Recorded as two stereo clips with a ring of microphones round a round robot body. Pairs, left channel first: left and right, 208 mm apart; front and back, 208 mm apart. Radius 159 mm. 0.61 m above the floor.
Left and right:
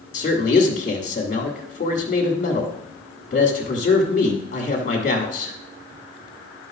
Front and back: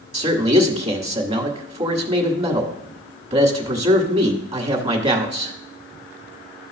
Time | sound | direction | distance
0.1 | a man speaking | 130° left | 1.7 m